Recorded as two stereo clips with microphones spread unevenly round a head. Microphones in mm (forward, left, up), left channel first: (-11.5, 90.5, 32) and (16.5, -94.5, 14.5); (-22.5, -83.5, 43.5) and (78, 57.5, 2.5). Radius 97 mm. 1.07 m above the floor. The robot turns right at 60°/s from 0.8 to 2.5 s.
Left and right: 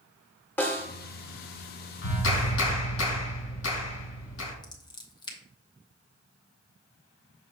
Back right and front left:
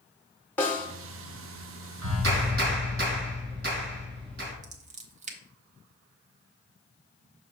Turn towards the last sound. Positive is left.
turn(degrees=30)